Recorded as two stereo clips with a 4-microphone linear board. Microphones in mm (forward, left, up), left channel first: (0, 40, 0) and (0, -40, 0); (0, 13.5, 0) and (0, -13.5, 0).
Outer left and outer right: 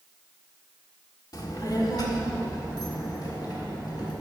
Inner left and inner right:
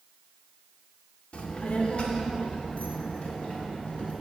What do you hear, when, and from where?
1.3 s a child speaking: 50° left (ahead or behind), 1.5 m; by 4.1 s 55° left (ahead or behind), 3.5 m